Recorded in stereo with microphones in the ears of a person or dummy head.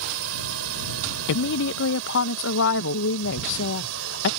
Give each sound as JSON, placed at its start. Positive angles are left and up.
{"t": 0.0, "sound": "a drone", "side_deg": -80}
{"t": 1.3, "sound": "a woman speaking", "side_deg": 75}